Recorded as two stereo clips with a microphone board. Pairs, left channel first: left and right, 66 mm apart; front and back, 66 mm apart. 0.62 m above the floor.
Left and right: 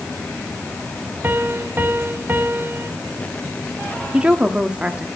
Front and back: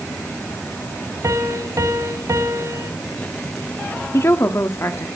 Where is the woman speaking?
25° right, 1.2 m.